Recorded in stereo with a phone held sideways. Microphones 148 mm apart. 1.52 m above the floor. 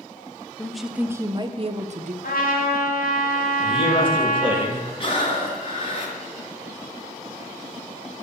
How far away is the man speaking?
About 2 m.